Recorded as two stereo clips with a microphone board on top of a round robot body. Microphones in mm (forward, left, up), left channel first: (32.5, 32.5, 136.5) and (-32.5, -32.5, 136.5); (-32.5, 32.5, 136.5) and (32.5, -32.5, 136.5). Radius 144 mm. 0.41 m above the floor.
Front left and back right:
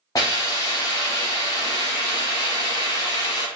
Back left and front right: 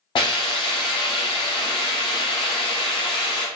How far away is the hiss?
About 0.6 m.